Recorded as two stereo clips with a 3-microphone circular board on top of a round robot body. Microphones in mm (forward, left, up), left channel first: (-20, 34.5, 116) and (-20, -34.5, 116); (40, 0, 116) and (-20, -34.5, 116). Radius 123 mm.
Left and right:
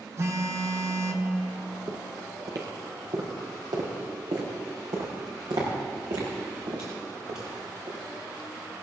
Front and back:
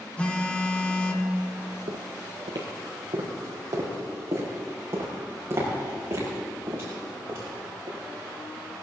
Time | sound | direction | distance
0.2 | a phone buzzing | 45° right | 1.6 m
1.9 | footsteps | 145° right | 1.6 m